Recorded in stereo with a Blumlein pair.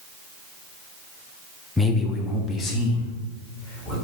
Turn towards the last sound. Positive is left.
turn(degrees=30)